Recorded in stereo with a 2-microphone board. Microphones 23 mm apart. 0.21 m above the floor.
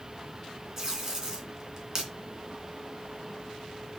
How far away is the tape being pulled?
About 2.5 m.